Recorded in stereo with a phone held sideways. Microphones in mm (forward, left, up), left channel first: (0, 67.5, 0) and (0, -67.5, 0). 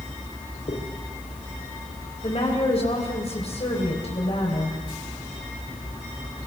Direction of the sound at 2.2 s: 50° left (ahead or behind).